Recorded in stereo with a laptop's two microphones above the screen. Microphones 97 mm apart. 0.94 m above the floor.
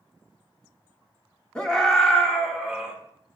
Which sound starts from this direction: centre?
A scream, at 1.6 s.